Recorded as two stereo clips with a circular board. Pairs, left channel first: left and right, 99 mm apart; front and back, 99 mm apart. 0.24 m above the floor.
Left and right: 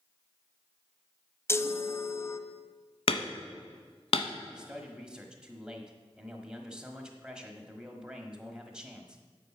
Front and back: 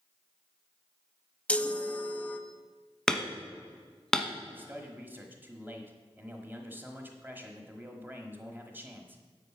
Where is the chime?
65° left, 0.6 m.